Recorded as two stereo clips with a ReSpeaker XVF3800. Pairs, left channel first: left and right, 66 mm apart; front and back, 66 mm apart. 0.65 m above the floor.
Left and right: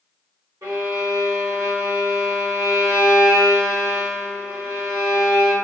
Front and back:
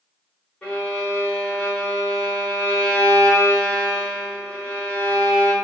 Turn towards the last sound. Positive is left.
turn(degrees=-70)